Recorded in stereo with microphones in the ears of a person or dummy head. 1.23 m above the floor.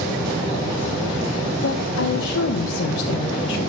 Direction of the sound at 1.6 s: 75° left (ahead or behind).